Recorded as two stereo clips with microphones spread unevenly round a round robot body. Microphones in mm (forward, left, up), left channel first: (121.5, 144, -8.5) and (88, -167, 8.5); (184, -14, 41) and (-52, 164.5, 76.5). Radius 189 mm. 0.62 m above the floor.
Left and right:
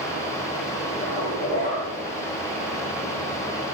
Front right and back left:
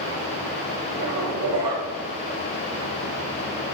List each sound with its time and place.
1.0 s a zipper: 150° left, 2.5 m